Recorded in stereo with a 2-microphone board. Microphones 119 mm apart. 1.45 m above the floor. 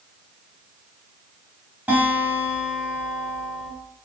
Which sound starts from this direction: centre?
A guitar, at 1.9 s.